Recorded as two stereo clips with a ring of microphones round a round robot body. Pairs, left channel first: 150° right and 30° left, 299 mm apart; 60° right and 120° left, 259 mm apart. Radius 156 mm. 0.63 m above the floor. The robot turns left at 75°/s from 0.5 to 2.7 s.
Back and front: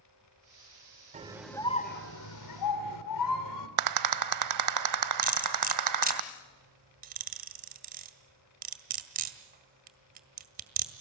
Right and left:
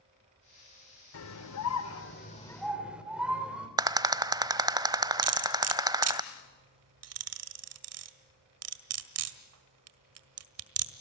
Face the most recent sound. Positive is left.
turn(degrees=95)